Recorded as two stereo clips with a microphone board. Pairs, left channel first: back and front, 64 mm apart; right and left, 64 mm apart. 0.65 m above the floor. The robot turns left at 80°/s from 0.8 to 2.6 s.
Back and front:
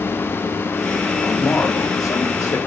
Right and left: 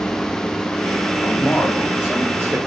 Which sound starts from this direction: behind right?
A man speaking, at 1.2 s.